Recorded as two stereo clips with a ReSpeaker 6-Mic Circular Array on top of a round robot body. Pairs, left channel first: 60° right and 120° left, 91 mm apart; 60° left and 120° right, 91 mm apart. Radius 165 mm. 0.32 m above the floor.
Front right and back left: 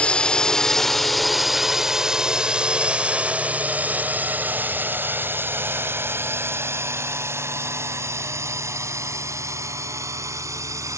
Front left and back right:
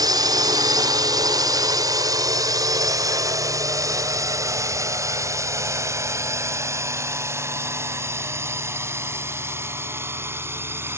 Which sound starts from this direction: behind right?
A drone, at 0.0 s.